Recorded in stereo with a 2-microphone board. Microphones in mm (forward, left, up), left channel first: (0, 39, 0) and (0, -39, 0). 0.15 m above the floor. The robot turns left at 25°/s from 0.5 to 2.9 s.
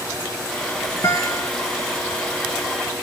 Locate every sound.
1.0 s a guitar: 50° left (ahead or behind), 2.5 m; by 1.5 s 65° left (ahead or behind), 2.5 m